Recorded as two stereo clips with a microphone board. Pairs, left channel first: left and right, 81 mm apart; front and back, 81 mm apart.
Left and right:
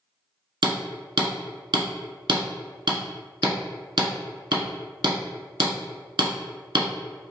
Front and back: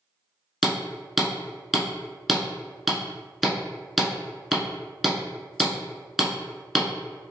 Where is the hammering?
90° right, 0.9 m.